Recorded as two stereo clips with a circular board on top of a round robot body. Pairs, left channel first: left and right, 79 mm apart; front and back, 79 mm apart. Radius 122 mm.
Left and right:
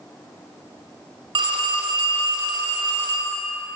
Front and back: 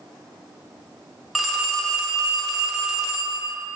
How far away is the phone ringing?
About 0.9 m.